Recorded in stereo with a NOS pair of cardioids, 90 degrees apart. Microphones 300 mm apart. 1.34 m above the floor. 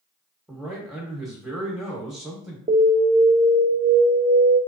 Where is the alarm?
20° right, 0.9 m.